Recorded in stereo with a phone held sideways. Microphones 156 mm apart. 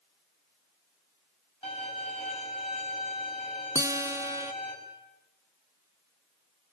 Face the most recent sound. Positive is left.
turn(degrees=-20)  # may be behind; listen again after turning